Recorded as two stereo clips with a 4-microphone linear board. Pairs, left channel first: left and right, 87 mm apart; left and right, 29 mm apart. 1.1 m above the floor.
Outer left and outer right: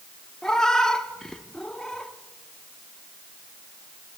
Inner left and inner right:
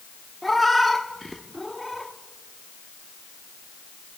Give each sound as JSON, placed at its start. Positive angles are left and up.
{"t": 0.4, "sound": "a cat meowing", "side_deg": 5, "distance_m": 0.8}